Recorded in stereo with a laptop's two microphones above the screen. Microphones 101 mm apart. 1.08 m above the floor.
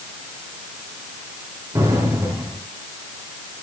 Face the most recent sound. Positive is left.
turn(degrees=-30)  # may be behind; listen again after turning